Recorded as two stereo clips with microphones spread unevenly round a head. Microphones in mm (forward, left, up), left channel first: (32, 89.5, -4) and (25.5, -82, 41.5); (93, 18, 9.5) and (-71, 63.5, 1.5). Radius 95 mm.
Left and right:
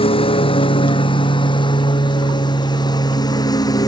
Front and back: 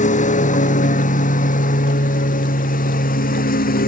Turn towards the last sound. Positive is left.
turn(degrees=20)